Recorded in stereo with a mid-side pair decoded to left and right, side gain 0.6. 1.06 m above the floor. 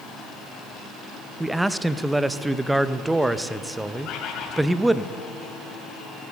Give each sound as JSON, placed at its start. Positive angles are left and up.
{"t": 1.4, "sound": "a man speaking", "azimuth_deg": -10, "distance_m": 0.6}
{"t": 4.0, "sound": "a bird", "azimuth_deg": 60, "distance_m": 2.5}